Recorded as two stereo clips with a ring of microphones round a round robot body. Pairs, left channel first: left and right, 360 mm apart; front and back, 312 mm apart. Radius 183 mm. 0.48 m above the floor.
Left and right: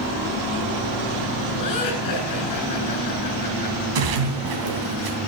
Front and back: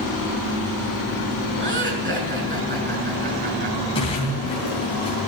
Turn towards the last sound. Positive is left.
turn(degrees=-75)